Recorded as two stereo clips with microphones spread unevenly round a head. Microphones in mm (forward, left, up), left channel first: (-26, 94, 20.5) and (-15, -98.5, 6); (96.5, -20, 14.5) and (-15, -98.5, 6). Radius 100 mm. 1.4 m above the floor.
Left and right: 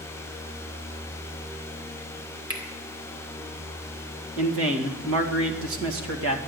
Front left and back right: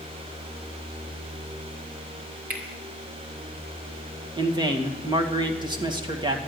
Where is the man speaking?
90° right, 2 m.